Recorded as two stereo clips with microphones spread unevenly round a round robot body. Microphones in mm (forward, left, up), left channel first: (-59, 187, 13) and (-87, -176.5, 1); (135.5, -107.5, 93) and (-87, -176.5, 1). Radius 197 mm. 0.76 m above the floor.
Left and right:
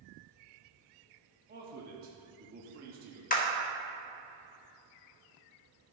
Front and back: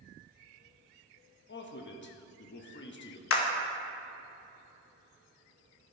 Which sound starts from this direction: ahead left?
A clap, at 3.3 s.